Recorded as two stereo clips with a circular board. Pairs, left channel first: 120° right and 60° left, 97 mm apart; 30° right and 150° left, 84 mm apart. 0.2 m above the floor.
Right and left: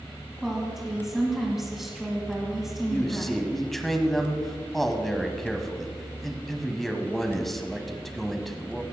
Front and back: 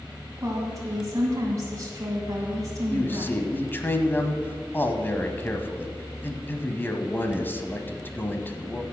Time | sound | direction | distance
0.4 | a woman speaking | 145° left | 1.9 m
2.9 | a man speaking | 35° right | 1.1 m